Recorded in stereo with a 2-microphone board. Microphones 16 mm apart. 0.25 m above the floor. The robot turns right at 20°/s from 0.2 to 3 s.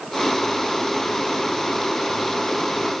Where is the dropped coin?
No dropped coin in this recording.